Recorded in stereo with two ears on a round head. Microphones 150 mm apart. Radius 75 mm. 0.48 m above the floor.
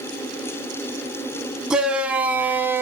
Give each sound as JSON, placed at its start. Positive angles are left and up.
{"t": 1.7, "sound": "a shout", "side_deg": -5, "distance_m": 3.0}